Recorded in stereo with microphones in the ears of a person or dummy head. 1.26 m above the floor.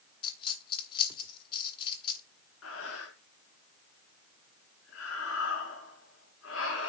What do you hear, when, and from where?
0.2 s a dropped coin: 30° left (ahead or behind), 1.5 m
2.6 s breathing: 80° left, 4.5 m